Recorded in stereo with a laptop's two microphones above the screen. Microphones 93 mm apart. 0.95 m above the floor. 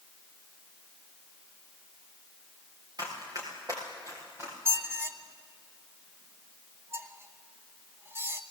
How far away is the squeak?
About 0.9 m.